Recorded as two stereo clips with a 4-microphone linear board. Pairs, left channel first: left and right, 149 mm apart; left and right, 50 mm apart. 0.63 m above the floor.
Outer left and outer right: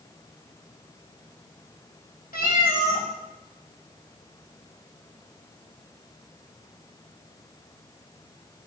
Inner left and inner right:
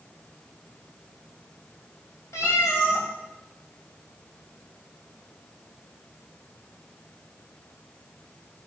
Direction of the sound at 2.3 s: 85° left.